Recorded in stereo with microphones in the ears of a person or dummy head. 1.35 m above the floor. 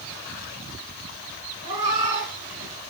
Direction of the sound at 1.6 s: 40° right (ahead or behind).